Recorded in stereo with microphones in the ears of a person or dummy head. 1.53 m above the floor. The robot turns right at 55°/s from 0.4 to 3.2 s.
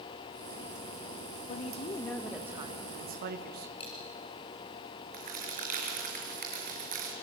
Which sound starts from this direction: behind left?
A woman speaking, at 1.5 s.